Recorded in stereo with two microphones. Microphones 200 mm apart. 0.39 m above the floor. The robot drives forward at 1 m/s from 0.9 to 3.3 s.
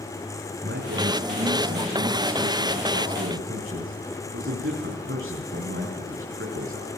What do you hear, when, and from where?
0.6 s a man speaking: 70° right (ahead or behind), 6 m; by 6.9 s 75° right (ahead or behind), 6 m